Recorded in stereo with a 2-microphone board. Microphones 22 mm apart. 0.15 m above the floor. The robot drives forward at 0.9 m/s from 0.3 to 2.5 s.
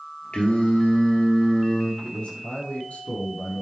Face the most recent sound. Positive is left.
turn(degrees=70)  # may be behind; listen again after turning